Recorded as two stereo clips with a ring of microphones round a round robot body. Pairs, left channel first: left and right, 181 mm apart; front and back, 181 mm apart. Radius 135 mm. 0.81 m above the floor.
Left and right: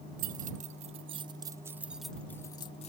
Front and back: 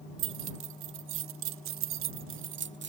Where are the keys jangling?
145° right; by 2.9 s 155° left.